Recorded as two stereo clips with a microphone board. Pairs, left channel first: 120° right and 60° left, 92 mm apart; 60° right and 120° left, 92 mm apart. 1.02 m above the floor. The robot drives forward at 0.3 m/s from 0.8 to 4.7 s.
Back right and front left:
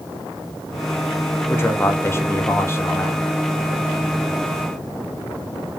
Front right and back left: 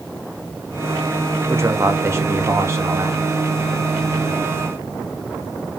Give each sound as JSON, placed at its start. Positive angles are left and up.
{"t": 1.5, "sound": "a man speaking", "azimuth_deg": 175, "distance_m": 0.9}